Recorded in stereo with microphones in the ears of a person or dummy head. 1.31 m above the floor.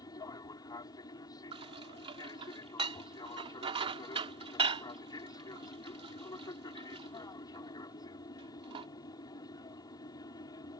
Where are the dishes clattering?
25° right (ahead or behind).